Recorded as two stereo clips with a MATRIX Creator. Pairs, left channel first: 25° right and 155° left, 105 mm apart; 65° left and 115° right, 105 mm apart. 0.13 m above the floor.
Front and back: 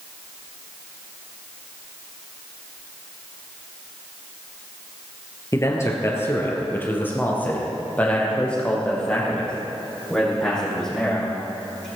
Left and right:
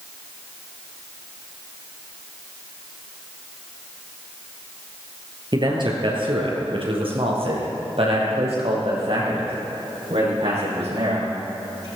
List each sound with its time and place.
5.5 s a man speaking: 80° right, 2.5 m; by 11.8 s 110° right, 6.5 m